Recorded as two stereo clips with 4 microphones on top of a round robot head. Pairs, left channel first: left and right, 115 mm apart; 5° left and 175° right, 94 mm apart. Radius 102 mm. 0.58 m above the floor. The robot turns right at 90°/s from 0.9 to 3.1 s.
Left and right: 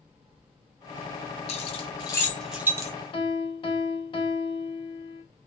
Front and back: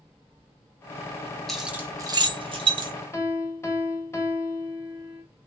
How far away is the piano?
About 1.4 m.